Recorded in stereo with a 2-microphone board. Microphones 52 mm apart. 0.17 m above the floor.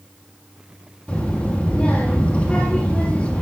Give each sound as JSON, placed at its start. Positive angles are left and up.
{"t": 1.1, "sound": "a child speaking", "side_deg": 25, "distance_m": 2.5}